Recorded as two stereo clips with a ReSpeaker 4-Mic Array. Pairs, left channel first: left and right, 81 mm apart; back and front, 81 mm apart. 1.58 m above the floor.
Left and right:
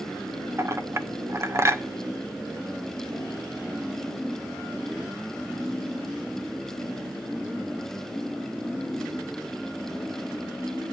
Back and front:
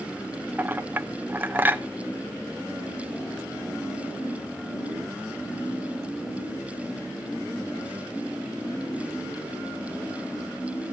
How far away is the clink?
About 0.8 m.